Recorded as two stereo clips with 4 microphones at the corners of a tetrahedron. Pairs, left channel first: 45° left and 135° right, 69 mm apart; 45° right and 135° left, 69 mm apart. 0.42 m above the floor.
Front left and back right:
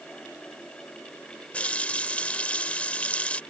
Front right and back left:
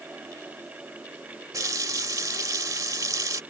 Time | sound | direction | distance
1.5 | a running tap | 115° left | ?